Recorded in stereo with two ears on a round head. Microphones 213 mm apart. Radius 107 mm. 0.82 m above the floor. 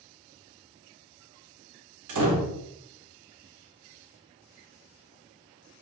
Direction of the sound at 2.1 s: 70° right (ahead or behind).